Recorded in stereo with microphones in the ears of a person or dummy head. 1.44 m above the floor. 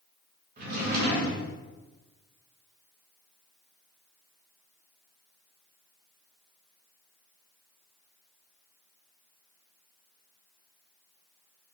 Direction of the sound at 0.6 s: 50° right (ahead or behind).